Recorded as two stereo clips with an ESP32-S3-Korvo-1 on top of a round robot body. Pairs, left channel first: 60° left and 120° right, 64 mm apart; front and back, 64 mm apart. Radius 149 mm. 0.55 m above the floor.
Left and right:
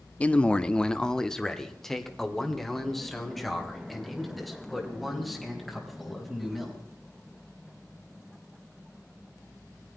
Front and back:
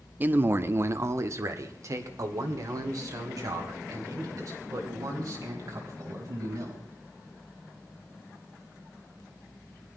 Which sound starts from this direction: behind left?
A man speaking, at 0.2 s.